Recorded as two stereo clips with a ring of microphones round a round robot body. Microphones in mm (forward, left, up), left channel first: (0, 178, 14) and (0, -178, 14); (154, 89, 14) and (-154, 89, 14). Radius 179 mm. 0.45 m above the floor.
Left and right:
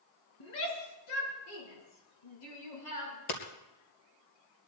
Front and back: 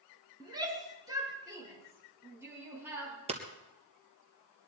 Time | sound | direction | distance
0.4 | a shout | 105° left | 5 m
3.3 | hammering | 110° left | 2.5 m